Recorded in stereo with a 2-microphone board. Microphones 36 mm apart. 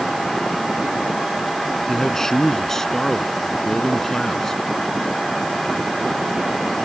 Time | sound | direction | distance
1.9 | a man speaking | 15° left (ahead or behind) | ?